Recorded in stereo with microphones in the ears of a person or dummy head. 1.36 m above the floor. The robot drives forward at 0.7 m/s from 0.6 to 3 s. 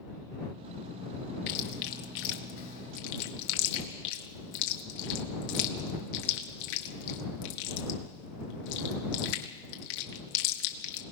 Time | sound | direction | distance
1.5 | chewing | 60° left (ahead or behind) | 1.6 m